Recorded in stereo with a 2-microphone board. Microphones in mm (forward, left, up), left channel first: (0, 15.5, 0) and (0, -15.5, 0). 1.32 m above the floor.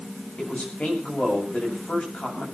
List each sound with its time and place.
0.4 s a man speaking: 50° left (ahead or behind), 7.5 m